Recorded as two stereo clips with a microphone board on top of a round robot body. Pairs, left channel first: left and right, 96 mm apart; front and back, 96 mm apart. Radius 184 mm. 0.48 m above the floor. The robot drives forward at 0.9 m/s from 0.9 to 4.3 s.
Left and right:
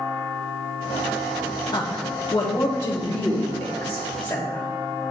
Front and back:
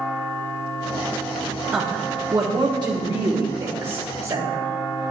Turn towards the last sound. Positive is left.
turn(degrees=165)